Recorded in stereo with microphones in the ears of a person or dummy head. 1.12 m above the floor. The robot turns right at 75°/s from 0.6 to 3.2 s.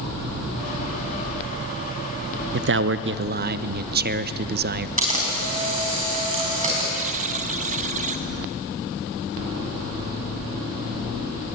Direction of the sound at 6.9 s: 40° right (ahead or behind).